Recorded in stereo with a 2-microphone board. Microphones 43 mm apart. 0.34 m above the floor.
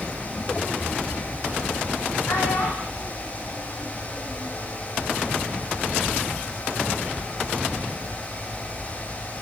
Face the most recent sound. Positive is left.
turn(degrees=75)  # may be behind; listen again after turning